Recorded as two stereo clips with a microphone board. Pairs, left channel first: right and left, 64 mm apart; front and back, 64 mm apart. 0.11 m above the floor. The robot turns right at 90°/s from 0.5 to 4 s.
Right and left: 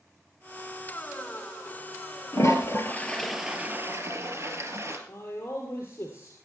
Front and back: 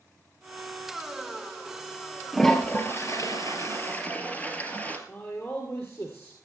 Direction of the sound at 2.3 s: 90° right.